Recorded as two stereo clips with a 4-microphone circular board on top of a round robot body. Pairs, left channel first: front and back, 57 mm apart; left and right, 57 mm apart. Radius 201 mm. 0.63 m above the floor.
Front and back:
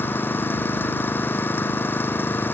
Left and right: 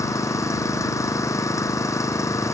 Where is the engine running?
55° left.